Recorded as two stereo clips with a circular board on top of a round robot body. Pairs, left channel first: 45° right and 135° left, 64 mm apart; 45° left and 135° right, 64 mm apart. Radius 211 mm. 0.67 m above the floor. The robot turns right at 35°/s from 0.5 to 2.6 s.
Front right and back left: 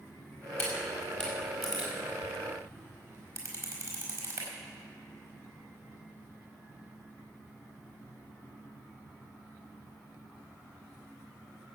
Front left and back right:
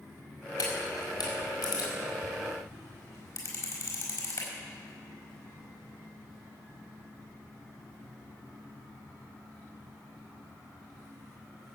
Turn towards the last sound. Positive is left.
turn(degrees=80)